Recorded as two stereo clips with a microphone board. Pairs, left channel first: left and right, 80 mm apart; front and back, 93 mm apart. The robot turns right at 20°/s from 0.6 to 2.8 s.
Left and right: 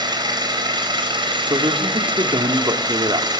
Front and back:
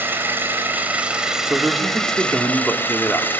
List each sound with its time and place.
0.0 s an engine running: 110° right, 3.5 m; by 3.4 s 70° right, 3.5 m
1.5 s a man speaking: 105° right, 2 m; by 3.3 s 80° right, 2 m